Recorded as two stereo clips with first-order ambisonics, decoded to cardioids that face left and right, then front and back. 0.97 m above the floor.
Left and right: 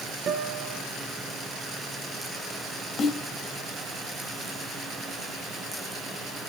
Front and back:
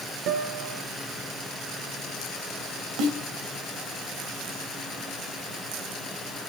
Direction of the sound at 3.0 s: 150° left.